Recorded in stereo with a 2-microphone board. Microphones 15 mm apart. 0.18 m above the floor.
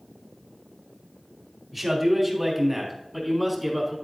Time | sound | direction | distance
1.7 | a man speaking | 15° right (ahead or behind) | 3.5 m